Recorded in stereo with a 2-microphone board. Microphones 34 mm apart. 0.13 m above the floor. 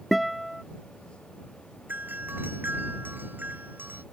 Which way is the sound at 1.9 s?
65° right (ahead or behind).